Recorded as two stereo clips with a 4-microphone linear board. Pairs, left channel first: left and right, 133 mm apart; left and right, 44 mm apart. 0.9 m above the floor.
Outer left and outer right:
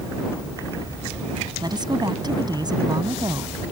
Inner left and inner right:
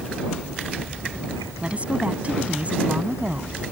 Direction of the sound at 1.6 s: 35° right (ahead or behind).